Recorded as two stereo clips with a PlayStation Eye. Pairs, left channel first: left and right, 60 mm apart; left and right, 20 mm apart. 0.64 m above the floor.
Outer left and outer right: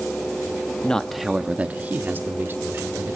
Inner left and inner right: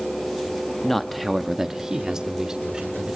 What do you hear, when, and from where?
0.8 s a man speaking: 15° left (ahead or behind), 0.7 m; by 3.2 s 45° right (ahead or behind), 2 m